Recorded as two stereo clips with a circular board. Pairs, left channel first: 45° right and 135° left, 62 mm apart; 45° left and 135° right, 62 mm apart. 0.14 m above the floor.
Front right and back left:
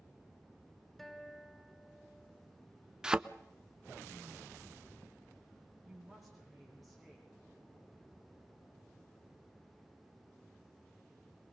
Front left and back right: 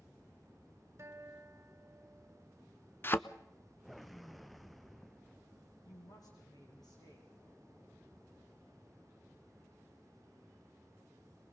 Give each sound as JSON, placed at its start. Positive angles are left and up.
{"t": 1.0, "sound": "a guitar", "azimuth_deg": -130, "distance_m": 1.3}
{"t": 3.0, "sound": "a thud", "azimuth_deg": 65, "distance_m": 0.5}
{"t": 5.8, "sound": "a woman speaking", "azimuth_deg": 45, "distance_m": 6.5}